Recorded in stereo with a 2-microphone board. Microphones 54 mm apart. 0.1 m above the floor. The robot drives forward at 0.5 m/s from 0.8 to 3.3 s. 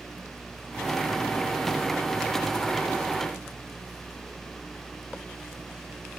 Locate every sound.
Only background noise.